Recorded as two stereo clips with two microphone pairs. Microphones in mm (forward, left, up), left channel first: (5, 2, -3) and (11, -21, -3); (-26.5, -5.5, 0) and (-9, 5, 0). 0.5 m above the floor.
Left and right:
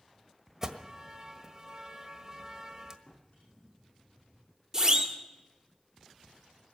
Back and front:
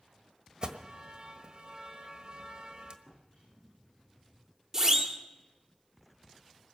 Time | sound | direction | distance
0.6 | an alarm | 5° right | 1.4 m
3.1 | a drawer | 80° left | 10 m
4.7 | a siren | 15° right | 2 m